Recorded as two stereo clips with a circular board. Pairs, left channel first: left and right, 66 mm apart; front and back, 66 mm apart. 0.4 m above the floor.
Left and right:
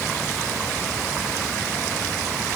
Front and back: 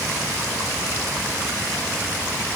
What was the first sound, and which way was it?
Only background noise.